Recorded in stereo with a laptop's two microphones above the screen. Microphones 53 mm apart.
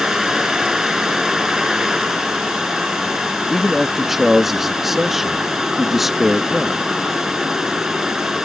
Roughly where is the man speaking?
Centre.